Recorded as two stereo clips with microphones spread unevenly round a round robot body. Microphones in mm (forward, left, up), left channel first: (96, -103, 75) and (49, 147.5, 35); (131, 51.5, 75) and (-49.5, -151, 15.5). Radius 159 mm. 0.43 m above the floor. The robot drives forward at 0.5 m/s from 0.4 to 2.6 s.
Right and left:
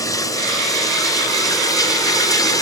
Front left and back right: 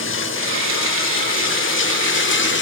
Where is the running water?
Straight ahead, 2.5 m.